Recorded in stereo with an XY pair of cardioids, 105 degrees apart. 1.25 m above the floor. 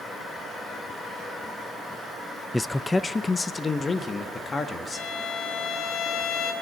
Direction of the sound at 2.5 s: 15° left.